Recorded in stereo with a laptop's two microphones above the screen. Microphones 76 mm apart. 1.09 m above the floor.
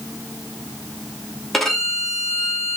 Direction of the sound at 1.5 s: Centre (ahead or behind).